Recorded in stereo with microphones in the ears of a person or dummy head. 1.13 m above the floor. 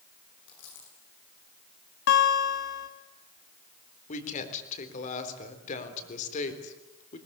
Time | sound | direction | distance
0.5 | a dropped coin | 75° left (ahead or behind) | 8.5 m
2.1 | a guitar | 60° left (ahead or behind) | 2 m
4.1 | a woman speaking | 45° left (ahead or behind) | 3.5 m